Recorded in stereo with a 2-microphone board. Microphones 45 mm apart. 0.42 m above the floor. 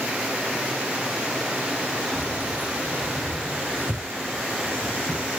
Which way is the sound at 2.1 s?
40° right (ahead or behind).